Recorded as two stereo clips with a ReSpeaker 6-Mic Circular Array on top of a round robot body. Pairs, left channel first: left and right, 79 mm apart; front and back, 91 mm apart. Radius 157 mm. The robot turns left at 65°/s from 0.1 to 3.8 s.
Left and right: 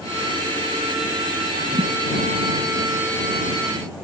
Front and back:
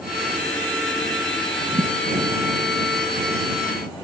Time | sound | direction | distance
1.7 | a thud | 135° right | ?